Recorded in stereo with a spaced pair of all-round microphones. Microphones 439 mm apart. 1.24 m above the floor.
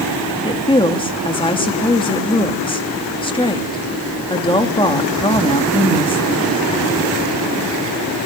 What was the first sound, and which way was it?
A woman speaking, 10° left (ahead or behind).